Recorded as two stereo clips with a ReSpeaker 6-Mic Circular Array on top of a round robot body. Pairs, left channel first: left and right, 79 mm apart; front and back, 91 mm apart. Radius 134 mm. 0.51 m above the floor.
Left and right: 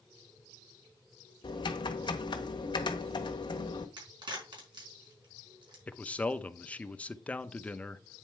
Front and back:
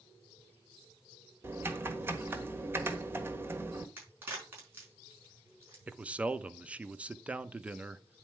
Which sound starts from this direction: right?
A crack, at 4.0 s.